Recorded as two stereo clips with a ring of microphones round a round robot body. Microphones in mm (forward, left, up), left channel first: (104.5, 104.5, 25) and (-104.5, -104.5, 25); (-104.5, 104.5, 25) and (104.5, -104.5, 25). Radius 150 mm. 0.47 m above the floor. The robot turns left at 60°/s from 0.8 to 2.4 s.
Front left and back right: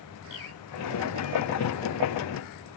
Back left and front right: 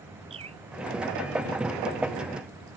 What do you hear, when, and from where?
0.3 s a bird: 25° left